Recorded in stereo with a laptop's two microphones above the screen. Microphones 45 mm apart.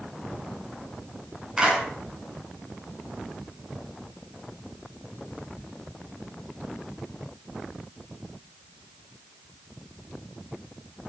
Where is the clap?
15° right (ahead or behind), 9.5 m.